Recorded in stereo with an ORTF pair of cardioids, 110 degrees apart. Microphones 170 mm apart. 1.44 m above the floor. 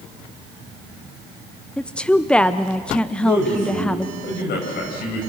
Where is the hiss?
I don't hear a hiss.